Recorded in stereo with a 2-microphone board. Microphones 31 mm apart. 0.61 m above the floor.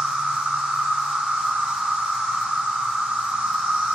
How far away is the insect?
About 0.7 m.